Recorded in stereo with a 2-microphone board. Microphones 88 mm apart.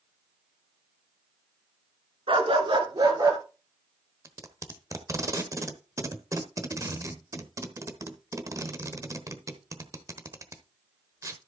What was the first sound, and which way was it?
A dog barking, 85° right.